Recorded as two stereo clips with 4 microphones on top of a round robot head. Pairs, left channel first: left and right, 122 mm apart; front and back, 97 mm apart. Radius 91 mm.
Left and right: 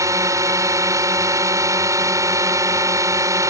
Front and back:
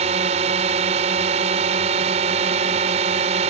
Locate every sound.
0.0 s a drone: 155° right